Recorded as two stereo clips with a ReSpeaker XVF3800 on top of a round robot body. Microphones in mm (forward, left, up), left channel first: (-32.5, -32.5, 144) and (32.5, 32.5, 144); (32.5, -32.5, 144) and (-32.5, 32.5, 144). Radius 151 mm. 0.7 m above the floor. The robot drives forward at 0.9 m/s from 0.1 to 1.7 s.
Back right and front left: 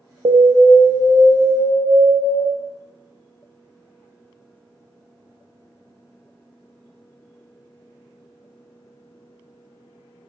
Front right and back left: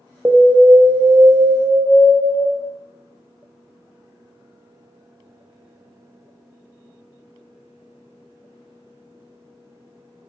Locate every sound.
0.2 s an alarm: 65° left, 0.5 m; by 2.4 s 160° left, 1.2 m